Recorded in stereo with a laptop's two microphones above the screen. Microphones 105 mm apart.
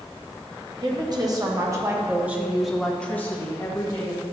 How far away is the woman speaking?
About 1.3 m.